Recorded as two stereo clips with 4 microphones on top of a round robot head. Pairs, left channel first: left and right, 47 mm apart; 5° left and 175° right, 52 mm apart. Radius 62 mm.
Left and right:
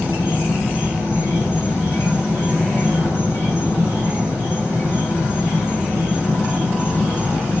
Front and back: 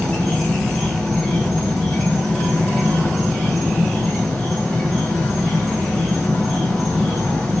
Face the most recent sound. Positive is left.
turn(degrees=80)